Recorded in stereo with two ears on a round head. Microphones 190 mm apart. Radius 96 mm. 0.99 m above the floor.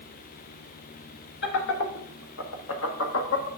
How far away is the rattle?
I don't hear a rattle.